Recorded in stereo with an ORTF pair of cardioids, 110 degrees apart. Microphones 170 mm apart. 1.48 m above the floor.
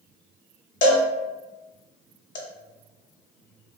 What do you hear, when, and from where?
0.8 s a cowbell: 50° left, 0.8 m